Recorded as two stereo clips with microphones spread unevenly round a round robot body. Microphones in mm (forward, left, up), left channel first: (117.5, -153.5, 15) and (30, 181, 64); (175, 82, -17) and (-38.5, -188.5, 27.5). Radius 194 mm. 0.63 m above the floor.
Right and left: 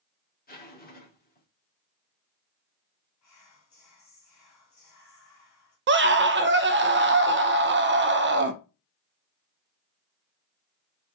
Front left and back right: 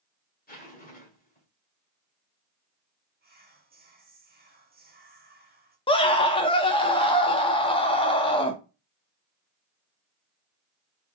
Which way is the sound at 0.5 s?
10° right.